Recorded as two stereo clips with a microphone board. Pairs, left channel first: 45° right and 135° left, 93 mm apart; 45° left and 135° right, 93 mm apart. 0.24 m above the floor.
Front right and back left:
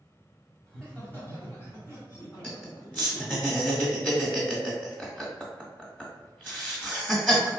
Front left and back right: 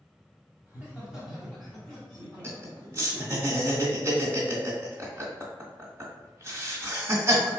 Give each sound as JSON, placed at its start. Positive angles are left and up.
{"t": 0.7, "sound": "laughter", "azimuth_deg": -110, "distance_m": 1.4}
{"t": 2.4, "sound": "laughter", "azimuth_deg": -100, "distance_m": 1.7}